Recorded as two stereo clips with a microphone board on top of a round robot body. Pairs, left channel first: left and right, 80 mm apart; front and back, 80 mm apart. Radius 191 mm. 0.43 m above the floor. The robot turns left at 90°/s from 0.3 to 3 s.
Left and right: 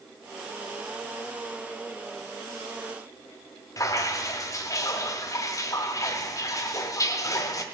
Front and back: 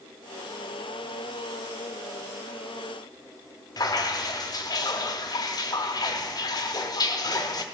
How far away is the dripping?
About 0.8 m.